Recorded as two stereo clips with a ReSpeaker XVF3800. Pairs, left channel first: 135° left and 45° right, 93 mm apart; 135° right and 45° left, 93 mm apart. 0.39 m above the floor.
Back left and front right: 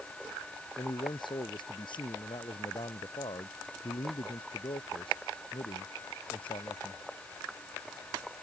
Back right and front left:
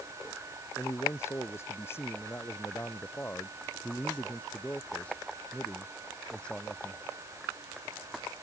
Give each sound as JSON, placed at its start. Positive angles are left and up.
{"t": 0.8, "sound": "a man speaking", "azimuth_deg": 165}